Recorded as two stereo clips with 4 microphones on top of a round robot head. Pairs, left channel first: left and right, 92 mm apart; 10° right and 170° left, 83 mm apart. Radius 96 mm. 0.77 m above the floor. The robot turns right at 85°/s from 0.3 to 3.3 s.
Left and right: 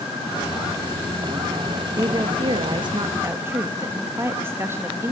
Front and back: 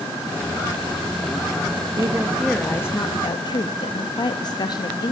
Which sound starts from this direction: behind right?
A woman speaking, at 1.9 s.